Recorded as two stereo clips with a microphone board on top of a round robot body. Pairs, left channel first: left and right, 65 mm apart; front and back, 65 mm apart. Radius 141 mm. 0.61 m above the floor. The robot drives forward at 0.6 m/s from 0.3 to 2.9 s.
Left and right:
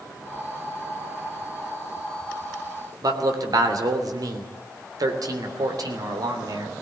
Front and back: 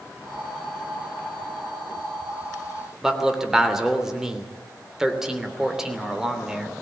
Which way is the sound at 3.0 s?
100° right.